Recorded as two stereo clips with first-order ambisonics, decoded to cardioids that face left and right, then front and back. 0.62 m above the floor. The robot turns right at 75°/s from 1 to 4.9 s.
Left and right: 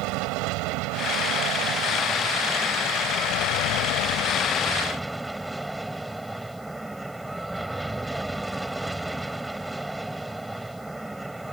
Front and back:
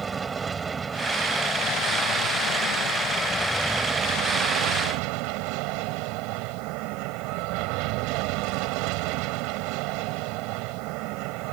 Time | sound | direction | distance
0.0 | an aircraft | 110° right | ?